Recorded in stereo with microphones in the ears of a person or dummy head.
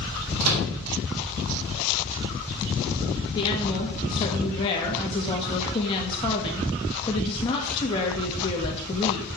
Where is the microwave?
90° right, 3.5 m.